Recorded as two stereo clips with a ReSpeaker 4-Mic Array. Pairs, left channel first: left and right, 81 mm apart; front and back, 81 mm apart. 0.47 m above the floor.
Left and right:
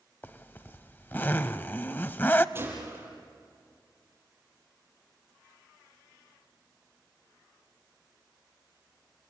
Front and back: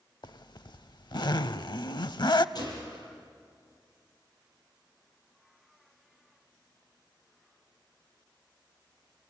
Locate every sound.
0.2 s a zipper: 25° left, 0.7 m
2.5 s a gunshot: 30° right, 7 m